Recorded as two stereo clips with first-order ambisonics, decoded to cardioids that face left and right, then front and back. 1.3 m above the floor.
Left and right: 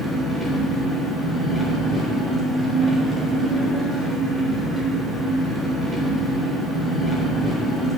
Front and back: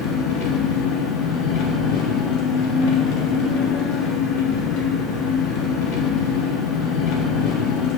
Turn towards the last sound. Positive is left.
turn(degrees=-10)